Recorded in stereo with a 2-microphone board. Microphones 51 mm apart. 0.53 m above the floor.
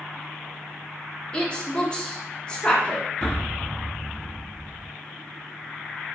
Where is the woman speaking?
20° left (ahead or behind), 0.6 m.